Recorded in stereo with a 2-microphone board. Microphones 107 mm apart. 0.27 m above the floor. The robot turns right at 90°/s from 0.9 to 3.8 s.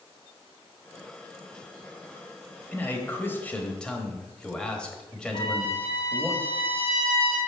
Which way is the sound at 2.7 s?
15° left (ahead or behind).